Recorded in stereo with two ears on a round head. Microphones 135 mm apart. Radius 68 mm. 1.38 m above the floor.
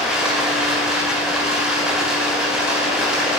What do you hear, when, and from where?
0.0 s running water: 5° right (ahead or behind), 4.5 m